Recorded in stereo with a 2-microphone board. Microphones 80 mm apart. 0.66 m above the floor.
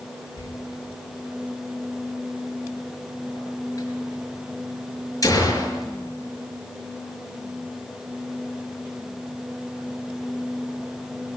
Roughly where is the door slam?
Left.